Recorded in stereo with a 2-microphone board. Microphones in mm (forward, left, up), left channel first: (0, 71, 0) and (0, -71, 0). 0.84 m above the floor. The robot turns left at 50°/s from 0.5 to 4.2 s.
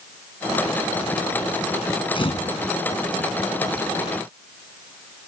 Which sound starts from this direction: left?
A camera shutter, at 2.1 s.